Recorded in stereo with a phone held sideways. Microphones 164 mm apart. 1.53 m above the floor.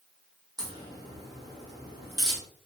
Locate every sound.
0.6 s a crack: 25° right (ahead or behind), 1.4 m